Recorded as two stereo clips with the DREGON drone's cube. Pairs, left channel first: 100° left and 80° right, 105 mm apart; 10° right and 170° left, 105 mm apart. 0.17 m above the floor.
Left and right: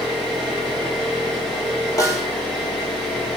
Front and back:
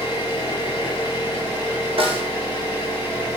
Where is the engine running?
5° left, 1.7 m.